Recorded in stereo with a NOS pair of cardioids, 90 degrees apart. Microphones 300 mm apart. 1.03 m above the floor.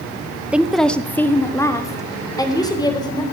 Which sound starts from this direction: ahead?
A woman speaking, at 0.5 s.